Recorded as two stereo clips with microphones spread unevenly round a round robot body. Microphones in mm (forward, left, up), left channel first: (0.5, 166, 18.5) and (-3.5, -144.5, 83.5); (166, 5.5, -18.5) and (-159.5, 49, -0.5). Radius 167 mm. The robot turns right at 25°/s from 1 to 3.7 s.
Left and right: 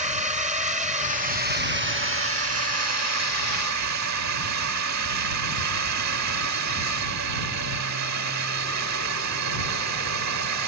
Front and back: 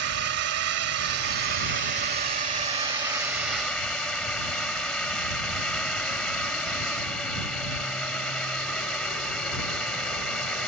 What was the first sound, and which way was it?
A drone, 160° right.